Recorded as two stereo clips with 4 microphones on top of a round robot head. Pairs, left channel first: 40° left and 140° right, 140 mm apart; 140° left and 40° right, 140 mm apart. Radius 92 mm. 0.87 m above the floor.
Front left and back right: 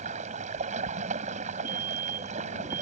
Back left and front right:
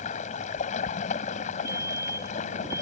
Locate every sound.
0.0 s running water: straight behind
1.6 s a fire alarm: 110° right